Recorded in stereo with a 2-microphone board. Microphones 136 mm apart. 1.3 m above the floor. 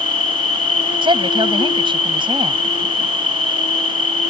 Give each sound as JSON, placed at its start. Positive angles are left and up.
{"t": 0.0, "sound": "an insect", "side_deg": 65}
{"t": 1.0, "sound": "a woman speaking", "side_deg": -35}